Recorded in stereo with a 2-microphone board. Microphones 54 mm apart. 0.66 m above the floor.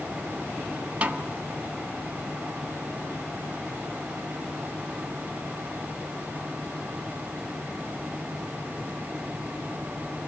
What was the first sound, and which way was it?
A snare drum, 25° right (ahead or behind).